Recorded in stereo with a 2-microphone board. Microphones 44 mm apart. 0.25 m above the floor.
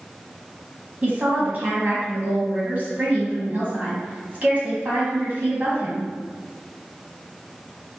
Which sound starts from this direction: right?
A woman speaking, at 1.0 s.